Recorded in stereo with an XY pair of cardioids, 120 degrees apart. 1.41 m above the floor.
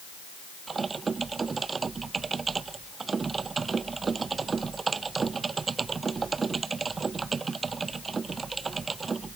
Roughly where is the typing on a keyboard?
Ahead right.